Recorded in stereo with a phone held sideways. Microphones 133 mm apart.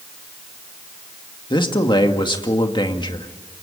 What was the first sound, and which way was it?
A man speaking, 35° left (ahead or behind).